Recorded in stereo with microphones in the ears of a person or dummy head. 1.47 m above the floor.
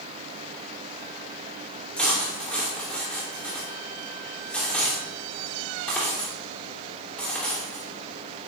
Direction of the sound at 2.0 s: 5° left (ahead or behind).